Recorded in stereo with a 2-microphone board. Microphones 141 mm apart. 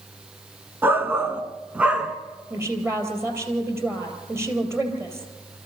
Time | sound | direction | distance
0.8 | a shout | 15° right (ahead or behind) | 1.1 m
2.5 | a woman speaking | 20° right (ahead or behind) | 3.5 m